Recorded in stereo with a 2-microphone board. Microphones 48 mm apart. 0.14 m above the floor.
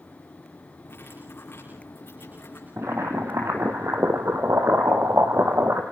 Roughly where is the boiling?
Right.